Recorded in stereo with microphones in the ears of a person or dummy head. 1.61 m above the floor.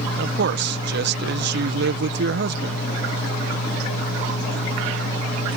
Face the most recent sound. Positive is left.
turn(degrees=-60)  # may be behind; listen again after turning